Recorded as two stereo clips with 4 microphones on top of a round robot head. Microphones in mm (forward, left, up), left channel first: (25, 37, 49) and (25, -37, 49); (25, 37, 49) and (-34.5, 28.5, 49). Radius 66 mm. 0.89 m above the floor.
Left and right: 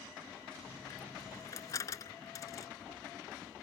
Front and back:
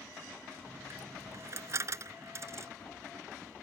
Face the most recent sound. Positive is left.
turn(degrees=145)